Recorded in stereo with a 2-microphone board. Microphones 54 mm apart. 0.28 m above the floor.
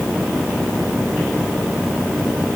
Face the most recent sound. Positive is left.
No sound to turn to.